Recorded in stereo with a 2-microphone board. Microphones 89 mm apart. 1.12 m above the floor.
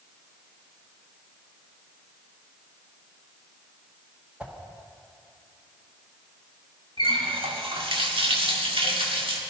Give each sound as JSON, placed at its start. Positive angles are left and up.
{"t": 4.4, "sound": "a whoosh", "side_deg": -15, "distance_m": 1.5}
{"t": 7.0, "sound": "a running tap", "side_deg": -80, "distance_m": 1.5}